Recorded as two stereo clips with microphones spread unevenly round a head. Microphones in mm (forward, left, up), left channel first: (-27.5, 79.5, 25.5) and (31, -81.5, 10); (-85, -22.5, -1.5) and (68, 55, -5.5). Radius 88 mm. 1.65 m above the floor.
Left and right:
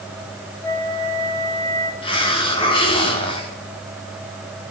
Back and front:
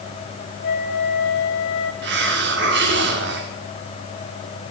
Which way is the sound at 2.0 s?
50° left.